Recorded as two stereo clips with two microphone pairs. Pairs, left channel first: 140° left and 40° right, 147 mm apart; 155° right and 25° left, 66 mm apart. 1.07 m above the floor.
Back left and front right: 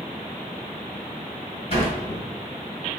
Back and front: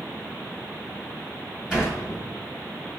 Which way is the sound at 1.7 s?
105° left.